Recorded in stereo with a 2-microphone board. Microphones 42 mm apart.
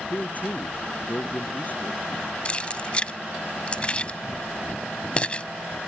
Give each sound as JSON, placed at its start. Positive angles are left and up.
{"t": 0.1, "sound": "a man speaking", "side_deg": 40}
{"t": 2.5, "sound": "keys jangling", "side_deg": 30}